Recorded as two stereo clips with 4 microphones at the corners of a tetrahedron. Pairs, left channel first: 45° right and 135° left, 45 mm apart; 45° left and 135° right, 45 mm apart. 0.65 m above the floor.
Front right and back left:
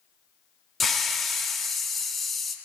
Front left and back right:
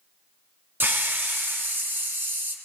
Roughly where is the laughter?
I don't hear laughter.